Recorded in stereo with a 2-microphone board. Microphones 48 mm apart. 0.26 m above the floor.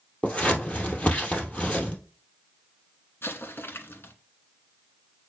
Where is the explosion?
50° left (ahead or behind), 1.2 m.